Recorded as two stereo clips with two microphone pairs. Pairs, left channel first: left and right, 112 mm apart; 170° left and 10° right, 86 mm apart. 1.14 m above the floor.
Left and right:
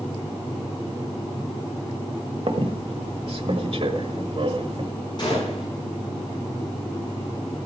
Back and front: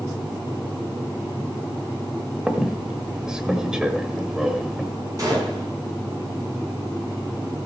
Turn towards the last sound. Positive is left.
turn(degrees=40)